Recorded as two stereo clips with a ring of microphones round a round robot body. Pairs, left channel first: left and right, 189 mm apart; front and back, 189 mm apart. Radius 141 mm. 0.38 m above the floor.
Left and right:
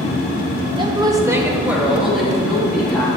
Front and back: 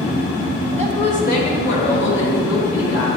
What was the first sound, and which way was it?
A woman speaking, 70° right.